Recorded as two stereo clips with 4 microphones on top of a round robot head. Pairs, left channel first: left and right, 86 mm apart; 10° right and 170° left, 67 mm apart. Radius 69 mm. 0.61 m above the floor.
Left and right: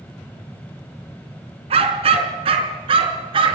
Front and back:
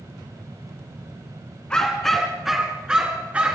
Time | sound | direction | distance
1.7 | a dog barking | 90° right | 2.5 m